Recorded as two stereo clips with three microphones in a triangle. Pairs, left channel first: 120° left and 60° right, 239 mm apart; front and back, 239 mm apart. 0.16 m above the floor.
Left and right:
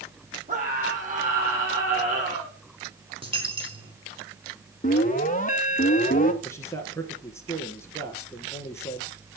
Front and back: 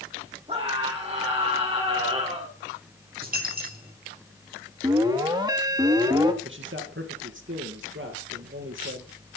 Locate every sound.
0.5 s a scream: 115° right, 7 m
3.2 s a dropped coin: 130° right, 5 m
4.8 s an alarm: 120° left, 1.3 m
6.4 s a man speaking: 165° right, 2.5 m